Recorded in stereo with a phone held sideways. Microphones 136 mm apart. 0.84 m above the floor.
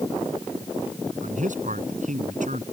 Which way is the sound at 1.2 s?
70° right (ahead or behind).